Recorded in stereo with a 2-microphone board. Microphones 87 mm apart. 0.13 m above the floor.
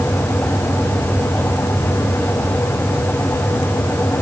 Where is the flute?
I don't hear a flute.